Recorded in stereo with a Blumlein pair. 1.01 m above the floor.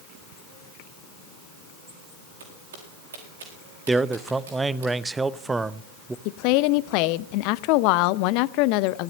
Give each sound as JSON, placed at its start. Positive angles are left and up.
{"t": 2.4, "sound": "footsteps", "azimuth_deg": -65, "distance_m": 4.0}
{"t": 3.9, "sound": "a man speaking", "azimuth_deg": -10, "distance_m": 0.6}
{"t": 6.2, "sound": "a woman speaking", "azimuth_deg": 45, "distance_m": 0.5}